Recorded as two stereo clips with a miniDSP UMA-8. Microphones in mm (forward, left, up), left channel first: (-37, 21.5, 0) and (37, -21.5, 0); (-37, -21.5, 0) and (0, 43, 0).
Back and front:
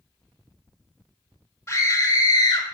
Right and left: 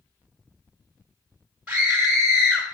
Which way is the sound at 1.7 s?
120° left.